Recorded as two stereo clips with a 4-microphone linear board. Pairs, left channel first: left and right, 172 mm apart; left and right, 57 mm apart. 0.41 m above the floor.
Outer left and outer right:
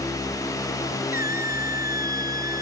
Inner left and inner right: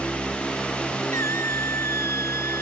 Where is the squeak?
60° left (ahead or behind).